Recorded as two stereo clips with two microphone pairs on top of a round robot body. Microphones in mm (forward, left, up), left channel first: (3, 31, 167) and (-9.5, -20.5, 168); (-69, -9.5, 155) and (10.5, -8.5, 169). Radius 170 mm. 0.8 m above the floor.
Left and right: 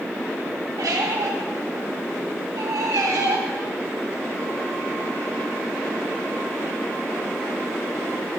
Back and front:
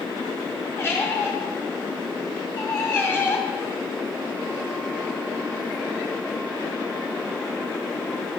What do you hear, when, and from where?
0.8 s a squeak: 110° right, 2 m